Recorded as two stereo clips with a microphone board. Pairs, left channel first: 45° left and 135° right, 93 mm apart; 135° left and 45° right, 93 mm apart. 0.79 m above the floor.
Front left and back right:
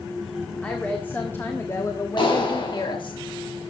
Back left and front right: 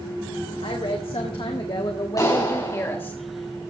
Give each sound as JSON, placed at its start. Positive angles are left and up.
{"t": 0.6, "sound": "a woman speaking", "azimuth_deg": 120, "distance_m": 1.8}
{"t": 2.2, "sound": "a clap", "azimuth_deg": 80, "distance_m": 5.0}